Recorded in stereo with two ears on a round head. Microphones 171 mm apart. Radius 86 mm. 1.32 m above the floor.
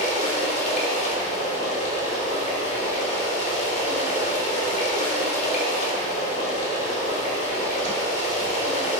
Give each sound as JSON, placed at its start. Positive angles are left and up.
{"t": 0.0, "sound": "running water", "side_deg": 40, "distance_m": 3.5}